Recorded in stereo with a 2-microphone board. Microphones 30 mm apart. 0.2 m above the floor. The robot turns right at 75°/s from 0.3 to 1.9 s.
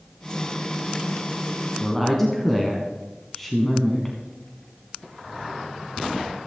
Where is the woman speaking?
5° left (ahead or behind), 1.7 m; by 4.2 s 10° left (ahead or behind), 1.7 m.